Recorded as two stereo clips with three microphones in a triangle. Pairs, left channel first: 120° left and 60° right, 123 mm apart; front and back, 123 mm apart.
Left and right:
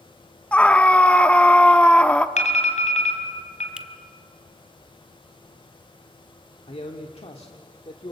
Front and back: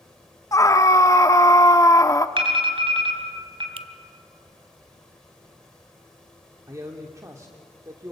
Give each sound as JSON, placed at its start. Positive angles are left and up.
{"t": 0.5, "sound": "a scream", "azimuth_deg": 45, "distance_m": 1.1}
{"t": 2.4, "sound": "an alarm", "azimuth_deg": 135, "distance_m": 3.5}
{"t": 3.8, "sound": "a finger snap", "azimuth_deg": -140, "distance_m": 1.0}
{"t": 6.7, "sound": "a man speaking", "azimuth_deg": 125, "distance_m": 1.7}